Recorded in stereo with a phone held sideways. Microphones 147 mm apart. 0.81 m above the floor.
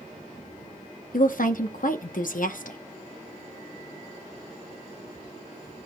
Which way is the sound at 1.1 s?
65° left (ahead or behind).